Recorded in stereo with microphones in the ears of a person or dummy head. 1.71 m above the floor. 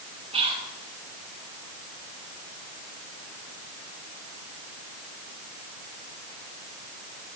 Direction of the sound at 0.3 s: 35° right (ahead or behind).